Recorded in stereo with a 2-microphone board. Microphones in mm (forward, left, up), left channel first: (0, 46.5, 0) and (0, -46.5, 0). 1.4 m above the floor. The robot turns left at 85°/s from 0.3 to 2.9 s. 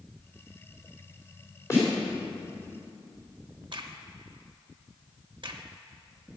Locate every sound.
1.7 s a snare drum: 35° left (ahead or behind), 3.5 m; by 1.9 s 15° left (ahead or behind), 3.5 m
3.7 s a crack: 60° right (ahead or behind), 0.8 m